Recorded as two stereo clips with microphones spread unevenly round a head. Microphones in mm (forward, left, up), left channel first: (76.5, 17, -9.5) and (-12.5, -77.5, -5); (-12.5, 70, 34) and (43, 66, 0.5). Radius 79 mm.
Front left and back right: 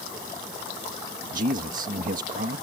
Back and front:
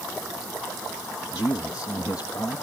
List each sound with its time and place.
1.3 s a man speaking: 120° right